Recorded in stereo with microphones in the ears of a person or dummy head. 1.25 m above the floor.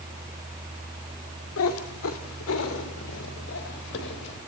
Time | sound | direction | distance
1.6 | a cat meowing | 75° left (ahead or behind) | 1.9 m